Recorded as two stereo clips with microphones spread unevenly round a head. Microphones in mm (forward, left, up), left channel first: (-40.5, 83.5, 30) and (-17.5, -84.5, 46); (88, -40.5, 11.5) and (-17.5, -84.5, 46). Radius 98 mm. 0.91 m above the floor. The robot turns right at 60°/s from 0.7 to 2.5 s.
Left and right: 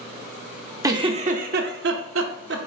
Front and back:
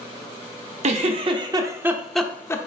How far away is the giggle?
About 0.9 m.